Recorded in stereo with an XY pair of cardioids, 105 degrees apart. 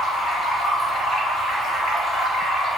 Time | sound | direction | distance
0.0 | running water | 40° left | 1.0 m